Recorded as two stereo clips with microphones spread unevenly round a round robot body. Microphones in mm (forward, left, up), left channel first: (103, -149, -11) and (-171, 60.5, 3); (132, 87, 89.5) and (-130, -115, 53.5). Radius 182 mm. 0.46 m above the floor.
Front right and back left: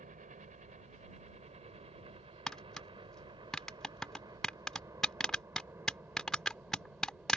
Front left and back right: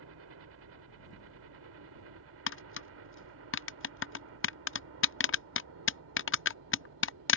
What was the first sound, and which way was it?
A helicopter, 155° right.